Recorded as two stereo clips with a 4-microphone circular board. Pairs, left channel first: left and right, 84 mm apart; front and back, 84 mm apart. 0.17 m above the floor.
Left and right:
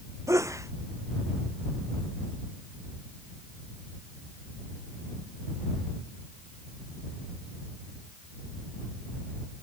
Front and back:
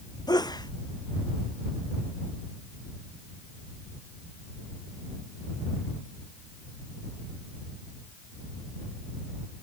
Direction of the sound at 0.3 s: 35° right.